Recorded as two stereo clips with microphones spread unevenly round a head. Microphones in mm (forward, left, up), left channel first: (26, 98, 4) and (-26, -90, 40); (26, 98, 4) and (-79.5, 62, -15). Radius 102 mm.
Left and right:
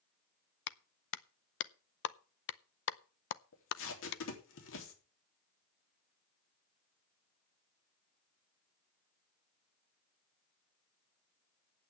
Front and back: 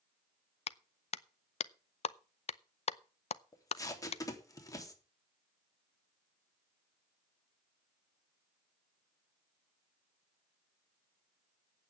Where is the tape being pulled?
80° left, 3 m.